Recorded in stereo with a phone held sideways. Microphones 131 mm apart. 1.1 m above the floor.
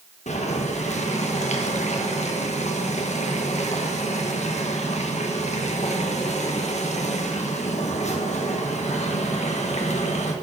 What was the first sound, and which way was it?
Boiling, 60° left (ahead or behind).